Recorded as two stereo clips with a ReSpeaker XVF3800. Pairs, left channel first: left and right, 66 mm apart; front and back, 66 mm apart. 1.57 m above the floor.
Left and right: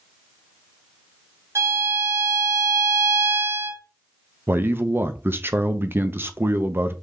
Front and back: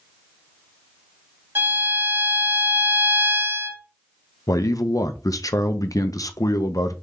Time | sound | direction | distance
1.6 | a violin | 125° right | 2.5 m
4.5 | a man speaking | 30° right | 0.6 m